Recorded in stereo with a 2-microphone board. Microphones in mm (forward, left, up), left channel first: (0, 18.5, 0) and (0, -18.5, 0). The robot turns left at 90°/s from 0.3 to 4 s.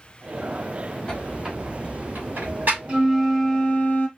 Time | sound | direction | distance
1.1 | a squeak | 25° left (ahead or behind) | 3 m
2.9 | a flute | 150° right | 1.5 m